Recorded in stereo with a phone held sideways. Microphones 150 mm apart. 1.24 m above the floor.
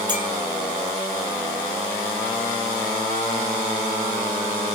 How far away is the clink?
About 4.5 m.